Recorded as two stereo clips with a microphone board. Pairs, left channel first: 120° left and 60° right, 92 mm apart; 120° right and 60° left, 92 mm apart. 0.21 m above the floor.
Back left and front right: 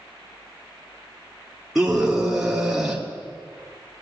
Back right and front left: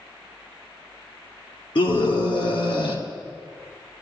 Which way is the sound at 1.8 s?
145° right.